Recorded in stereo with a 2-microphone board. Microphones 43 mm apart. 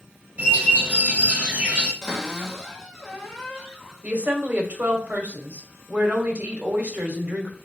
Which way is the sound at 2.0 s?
10° left (ahead or behind).